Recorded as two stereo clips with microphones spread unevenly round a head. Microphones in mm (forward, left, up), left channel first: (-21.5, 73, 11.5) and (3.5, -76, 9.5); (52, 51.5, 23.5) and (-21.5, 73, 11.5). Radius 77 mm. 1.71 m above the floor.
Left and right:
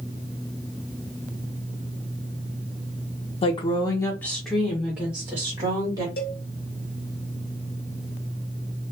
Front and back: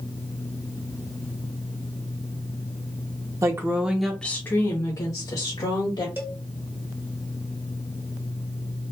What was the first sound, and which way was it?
A woman speaking, 130° left.